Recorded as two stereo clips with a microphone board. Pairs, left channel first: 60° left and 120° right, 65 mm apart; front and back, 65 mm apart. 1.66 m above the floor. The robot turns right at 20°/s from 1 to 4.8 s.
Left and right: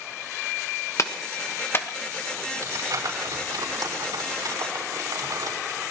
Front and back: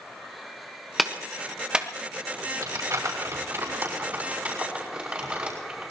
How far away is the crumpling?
About 5.5 m.